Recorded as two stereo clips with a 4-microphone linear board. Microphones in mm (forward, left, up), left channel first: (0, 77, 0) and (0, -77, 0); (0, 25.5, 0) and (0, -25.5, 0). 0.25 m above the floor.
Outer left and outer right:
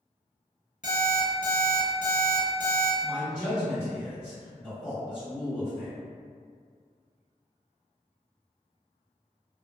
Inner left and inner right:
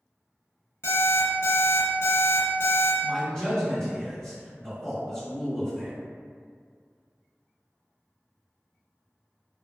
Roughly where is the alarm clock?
Left.